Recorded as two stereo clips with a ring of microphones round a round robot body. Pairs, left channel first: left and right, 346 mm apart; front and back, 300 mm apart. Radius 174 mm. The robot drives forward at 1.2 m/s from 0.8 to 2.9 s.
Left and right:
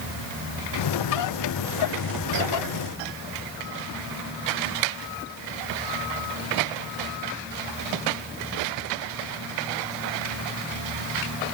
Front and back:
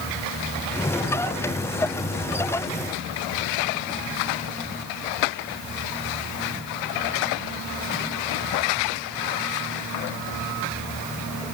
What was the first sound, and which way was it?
Only background noise.